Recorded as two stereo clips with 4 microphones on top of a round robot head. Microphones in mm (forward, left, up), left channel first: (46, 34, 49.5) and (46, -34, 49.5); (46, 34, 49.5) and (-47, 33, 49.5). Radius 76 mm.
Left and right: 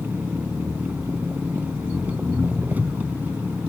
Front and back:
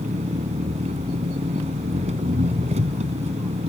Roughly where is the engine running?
Behind.